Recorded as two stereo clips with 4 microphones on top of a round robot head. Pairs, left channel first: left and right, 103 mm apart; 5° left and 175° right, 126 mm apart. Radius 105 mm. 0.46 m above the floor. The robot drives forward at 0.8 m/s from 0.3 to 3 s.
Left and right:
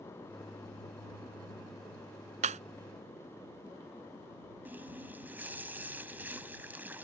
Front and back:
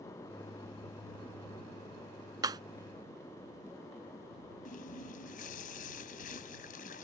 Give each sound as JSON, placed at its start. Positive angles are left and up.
{"t": 2.4, "sound": "breaking glass", "azimuth_deg": -110}
{"t": 4.7, "sound": "a running tap", "azimuth_deg": -15}